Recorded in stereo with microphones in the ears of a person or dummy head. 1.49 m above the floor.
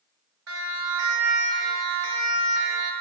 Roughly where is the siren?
Right.